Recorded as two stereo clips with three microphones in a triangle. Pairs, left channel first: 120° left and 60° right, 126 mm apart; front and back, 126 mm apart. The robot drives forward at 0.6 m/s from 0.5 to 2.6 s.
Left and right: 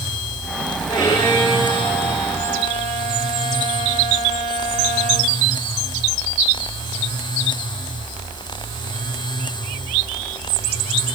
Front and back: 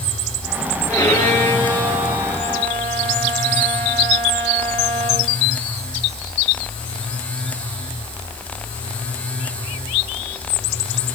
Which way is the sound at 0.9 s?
65° left.